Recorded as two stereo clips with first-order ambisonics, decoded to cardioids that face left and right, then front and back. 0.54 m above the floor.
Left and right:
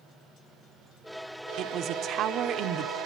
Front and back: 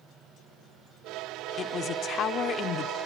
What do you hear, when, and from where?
1.6 s a man speaking: 50° right, 1.0 m